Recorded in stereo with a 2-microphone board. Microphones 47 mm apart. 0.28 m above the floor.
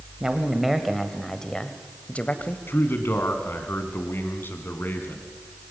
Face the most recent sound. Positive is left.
turn(degrees=50)  # may be behind; listen again after turning